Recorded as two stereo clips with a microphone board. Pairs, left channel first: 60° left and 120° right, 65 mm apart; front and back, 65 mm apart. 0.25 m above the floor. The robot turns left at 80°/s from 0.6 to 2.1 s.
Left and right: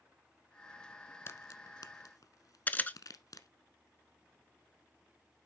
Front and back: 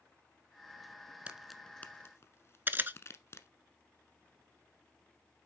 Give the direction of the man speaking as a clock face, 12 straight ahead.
I don't hear a man speaking.